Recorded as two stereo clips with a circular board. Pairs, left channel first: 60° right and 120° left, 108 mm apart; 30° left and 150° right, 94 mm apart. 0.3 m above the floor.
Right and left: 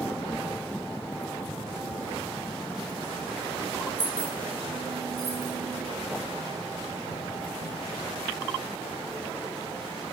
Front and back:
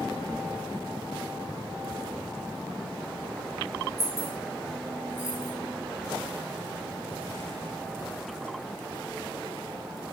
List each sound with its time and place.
4.0 s keys jangling: straight behind, 0.8 m; by 5.5 s 75° left, 0.9 m